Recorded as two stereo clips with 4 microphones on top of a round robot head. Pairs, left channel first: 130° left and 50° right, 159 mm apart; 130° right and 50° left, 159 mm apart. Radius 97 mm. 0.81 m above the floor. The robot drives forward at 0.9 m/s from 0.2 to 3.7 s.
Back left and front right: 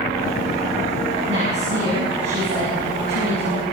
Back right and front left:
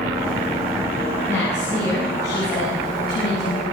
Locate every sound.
1.3 s a woman speaking: 55° right, 9 m; by 3.6 s 65° right, 8 m